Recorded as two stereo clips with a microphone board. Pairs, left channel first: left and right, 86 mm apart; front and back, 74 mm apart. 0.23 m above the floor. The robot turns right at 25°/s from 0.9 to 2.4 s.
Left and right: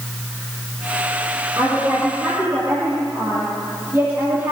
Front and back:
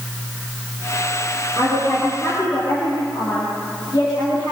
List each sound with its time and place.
1.6 s a woman speaking: 45° right, 8 m; by 4.5 s 25° right, 8 m